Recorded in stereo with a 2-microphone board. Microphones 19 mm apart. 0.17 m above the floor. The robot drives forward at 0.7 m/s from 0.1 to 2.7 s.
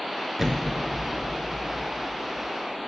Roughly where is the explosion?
Right.